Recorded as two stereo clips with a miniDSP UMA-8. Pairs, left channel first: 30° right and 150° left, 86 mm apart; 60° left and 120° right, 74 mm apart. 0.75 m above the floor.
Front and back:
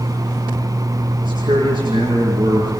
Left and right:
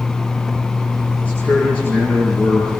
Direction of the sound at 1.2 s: 130° left.